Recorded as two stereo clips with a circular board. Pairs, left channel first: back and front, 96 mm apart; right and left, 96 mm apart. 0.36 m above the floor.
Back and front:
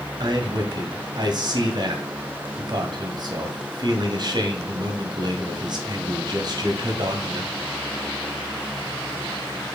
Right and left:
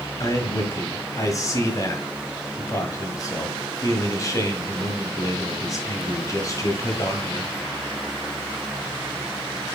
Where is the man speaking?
40° right, 1.9 m.